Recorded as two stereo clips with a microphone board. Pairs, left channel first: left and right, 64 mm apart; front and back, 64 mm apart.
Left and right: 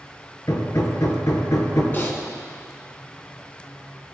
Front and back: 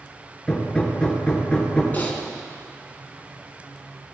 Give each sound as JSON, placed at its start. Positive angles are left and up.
{"t": 0.5, "sound": "hammering", "azimuth_deg": 75, "distance_m": 2.0}
{"t": 1.9, "sound": "typing on a keyboard", "azimuth_deg": 50, "distance_m": 1.6}